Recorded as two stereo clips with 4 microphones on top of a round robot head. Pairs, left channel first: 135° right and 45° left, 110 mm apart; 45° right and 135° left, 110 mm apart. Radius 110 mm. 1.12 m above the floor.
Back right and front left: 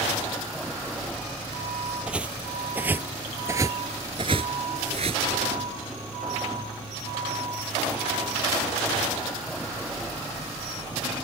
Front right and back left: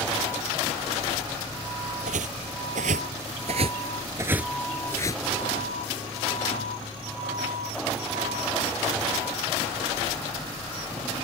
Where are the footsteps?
125° left; by 5.2 s 5° left.